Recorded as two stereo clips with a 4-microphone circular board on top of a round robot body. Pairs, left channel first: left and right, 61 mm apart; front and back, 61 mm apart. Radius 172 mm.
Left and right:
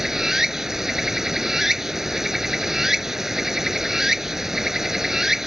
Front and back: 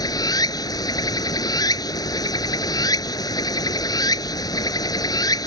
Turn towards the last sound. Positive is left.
turn(degrees=-5)